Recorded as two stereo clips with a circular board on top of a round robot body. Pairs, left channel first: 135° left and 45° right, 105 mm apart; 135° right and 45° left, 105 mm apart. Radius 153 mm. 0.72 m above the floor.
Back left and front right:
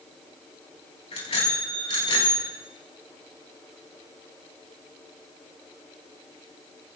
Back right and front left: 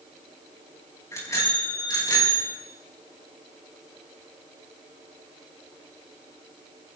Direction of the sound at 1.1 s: 165° left.